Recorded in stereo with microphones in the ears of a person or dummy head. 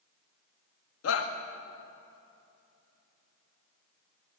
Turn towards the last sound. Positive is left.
turn(degrees=80)